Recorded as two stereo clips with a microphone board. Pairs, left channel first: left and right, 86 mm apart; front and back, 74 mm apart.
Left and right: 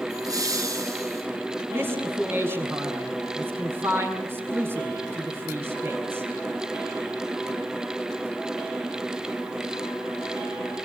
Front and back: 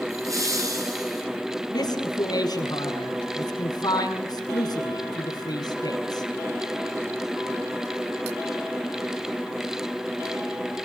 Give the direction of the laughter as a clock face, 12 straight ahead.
5 o'clock.